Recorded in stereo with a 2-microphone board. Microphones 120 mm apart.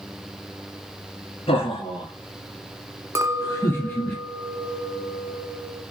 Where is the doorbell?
I don't hear a doorbell.